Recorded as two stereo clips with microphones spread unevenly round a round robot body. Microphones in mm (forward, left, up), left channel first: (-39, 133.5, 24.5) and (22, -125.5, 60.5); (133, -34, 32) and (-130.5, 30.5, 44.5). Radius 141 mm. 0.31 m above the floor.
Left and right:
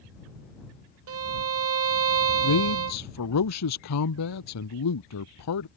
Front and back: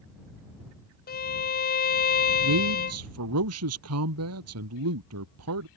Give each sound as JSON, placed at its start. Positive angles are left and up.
{"t": 1.1, "sound": "a violin", "azimuth_deg": -55}
{"t": 2.4, "sound": "a man speaking", "azimuth_deg": 130}